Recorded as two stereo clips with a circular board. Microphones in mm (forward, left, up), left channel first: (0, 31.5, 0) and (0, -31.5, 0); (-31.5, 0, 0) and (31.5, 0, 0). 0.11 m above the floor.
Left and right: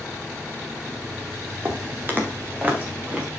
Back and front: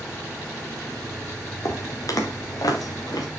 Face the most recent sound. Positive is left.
turn(degrees=-160)